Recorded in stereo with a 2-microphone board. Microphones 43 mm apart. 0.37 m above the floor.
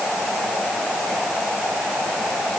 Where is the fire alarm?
No fire alarm in this recording.